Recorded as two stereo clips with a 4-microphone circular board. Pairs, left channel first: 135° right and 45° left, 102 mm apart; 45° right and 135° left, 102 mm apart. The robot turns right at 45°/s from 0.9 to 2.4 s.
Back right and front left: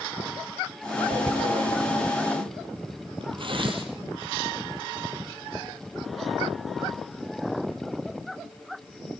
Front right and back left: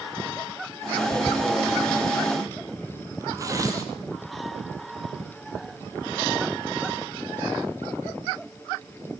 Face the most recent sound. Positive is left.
turn(degrees=80)